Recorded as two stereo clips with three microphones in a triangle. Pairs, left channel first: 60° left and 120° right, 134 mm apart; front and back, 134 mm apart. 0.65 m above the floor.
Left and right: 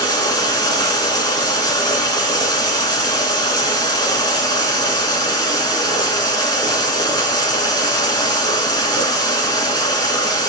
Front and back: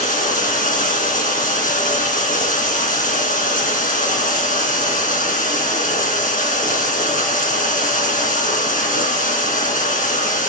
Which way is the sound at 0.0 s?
Straight ahead.